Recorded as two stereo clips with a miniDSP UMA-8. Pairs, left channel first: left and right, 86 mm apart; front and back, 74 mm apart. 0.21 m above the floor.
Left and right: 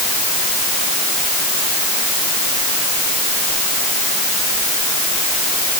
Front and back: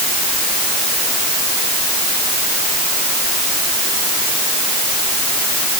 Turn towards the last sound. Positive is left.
No sound to turn to.